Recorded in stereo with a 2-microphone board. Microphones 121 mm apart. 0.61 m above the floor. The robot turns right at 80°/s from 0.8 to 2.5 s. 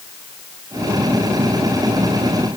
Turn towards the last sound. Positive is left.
No sound to turn to.